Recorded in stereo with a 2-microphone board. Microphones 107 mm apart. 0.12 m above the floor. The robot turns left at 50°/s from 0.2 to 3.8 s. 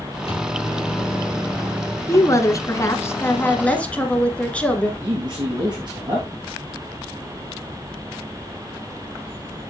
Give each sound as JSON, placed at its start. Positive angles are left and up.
{"t": 0.3, "sound": "a microwave", "azimuth_deg": 70, "distance_m": 3.0}
{"t": 2.1, "sound": "a woman speaking", "side_deg": 25, "distance_m": 1.4}
{"t": 5.0, "sound": "a man speaking", "side_deg": -45, "distance_m": 3.0}